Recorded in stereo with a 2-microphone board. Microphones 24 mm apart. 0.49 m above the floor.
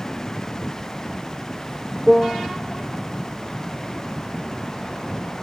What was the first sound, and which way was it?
A piano, 20° right (ahead or behind).